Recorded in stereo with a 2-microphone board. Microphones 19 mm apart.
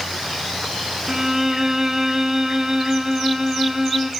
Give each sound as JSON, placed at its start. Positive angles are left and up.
{"t": 1.1, "sound": "a violin", "side_deg": -30, "distance_m": 1.0}